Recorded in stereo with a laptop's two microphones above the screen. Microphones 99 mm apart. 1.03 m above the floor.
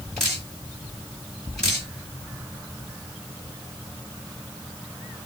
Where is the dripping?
5° left (ahead or behind), 2.5 m.